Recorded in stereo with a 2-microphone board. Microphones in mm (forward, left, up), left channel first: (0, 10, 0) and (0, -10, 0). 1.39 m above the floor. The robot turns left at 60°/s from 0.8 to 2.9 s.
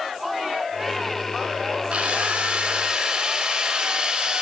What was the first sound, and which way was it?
A drill, 80° right.